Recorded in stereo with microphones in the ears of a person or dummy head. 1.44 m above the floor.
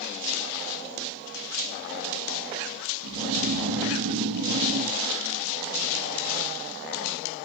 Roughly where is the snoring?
Right.